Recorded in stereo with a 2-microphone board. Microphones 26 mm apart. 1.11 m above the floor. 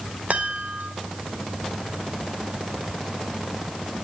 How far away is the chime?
About 3 m.